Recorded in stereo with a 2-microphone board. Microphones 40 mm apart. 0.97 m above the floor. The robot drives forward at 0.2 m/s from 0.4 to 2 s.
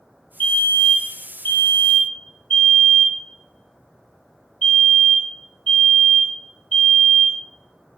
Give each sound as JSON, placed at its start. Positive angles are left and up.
{"t": 0.4, "sound": "a fire alarm", "side_deg": 55, "distance_m": 2.0}